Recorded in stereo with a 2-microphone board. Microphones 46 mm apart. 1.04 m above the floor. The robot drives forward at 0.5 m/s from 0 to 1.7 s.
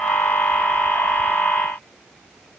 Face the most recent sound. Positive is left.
No sound to turn to.